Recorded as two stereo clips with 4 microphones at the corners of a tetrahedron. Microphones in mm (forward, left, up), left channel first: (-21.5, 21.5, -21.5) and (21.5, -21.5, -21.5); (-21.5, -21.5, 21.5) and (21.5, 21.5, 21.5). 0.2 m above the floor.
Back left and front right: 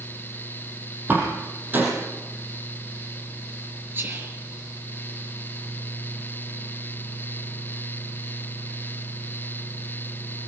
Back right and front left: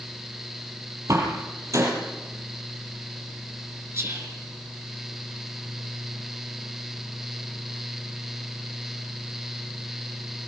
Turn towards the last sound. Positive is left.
turn(degrees=5)